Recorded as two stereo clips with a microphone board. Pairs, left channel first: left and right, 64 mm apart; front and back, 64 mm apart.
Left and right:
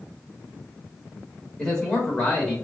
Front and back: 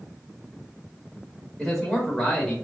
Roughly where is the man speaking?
Ahead left.